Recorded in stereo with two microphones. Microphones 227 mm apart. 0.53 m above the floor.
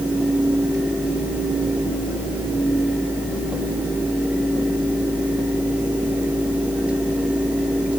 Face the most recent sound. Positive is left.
No sound to turn to.